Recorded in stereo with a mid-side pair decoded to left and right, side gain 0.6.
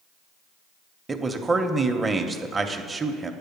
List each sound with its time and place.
1.1 s a man speaking: 15° right, 0.6 m